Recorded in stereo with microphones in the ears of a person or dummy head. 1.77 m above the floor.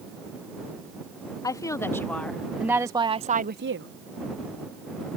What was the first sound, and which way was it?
A woman speaking, 15° left (ahead or behind).